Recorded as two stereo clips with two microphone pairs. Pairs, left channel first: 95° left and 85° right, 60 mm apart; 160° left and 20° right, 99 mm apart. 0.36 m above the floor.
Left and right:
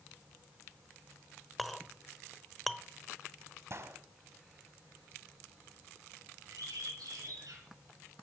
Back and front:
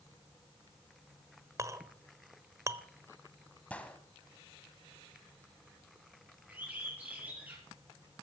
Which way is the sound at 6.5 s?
90° right.